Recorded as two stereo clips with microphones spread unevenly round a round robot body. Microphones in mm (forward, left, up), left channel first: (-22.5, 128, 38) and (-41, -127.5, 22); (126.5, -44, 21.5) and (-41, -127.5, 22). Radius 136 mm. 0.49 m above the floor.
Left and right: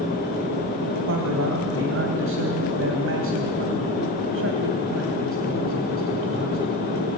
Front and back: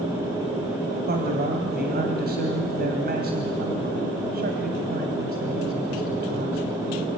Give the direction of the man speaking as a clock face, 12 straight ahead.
4 o'clock.